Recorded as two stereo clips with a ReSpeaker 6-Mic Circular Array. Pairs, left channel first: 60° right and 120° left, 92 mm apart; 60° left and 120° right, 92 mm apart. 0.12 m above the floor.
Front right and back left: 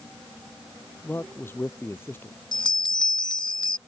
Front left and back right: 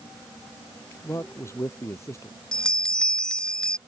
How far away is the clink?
I don't hear a clink.